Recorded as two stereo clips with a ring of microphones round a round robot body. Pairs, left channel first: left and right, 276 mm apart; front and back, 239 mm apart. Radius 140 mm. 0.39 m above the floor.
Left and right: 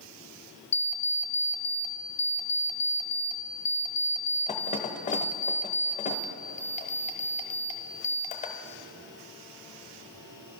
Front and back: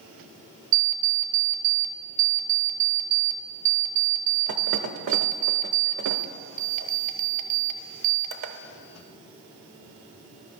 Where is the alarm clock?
155° left, 0.7 m.